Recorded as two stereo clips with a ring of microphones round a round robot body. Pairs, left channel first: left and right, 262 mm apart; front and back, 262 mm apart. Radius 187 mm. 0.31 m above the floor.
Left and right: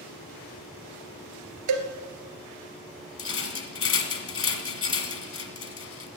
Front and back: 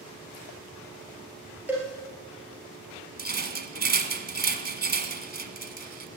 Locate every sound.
1.7 s a cowbell: 95° right, 1.8 m
3.2 s a rattle: 125° left, 1.6 m